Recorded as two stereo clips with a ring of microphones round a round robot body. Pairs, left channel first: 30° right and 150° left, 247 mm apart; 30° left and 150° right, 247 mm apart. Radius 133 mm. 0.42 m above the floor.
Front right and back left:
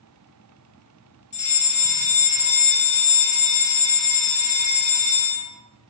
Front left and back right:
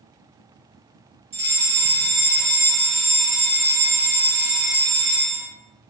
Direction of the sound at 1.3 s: 85° right.